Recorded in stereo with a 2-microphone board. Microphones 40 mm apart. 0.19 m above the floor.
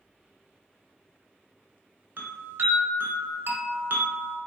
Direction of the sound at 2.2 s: 65° right (ahead or behind).